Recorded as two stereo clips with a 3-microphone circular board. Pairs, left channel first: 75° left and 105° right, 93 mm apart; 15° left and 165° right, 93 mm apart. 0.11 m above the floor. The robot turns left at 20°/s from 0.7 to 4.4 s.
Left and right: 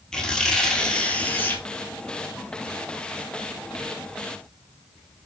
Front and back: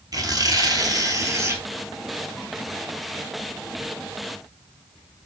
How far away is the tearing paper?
About 0.8 m.